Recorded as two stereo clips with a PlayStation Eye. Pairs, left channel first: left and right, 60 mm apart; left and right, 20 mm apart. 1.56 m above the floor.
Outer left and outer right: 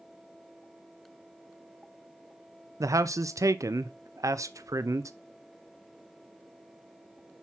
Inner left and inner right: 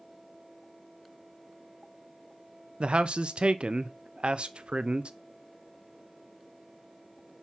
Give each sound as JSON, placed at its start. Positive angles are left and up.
{"t": 2.8, "sound": "a man speaking", "side_deg": -65, "distance_m": 0.7}